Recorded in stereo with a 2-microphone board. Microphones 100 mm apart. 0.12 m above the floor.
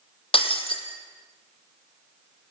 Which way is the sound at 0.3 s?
65° left (ahead or behind).